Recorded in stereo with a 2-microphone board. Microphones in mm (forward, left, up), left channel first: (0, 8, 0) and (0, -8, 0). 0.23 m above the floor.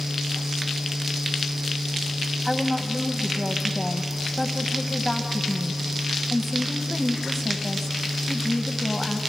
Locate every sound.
2.5 s a woman speaking: 25° left (ahead or behind), 1.0 m